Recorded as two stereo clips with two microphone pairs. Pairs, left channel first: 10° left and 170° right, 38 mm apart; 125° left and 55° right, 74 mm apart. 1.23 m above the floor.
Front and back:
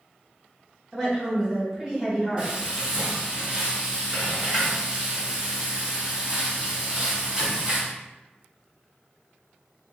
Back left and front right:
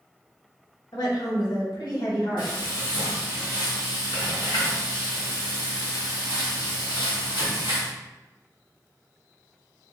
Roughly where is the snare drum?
No snare drum in this recording.